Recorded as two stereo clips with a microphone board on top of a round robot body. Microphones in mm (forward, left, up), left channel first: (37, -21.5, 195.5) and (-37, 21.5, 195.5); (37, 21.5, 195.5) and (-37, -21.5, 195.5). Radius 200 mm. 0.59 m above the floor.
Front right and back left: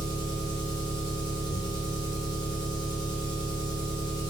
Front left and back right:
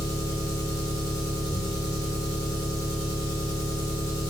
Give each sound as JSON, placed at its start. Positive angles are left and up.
{"t": 0.0, "sound": "an engine running", "azimuth_deg": -15, "distance_m": 1.2}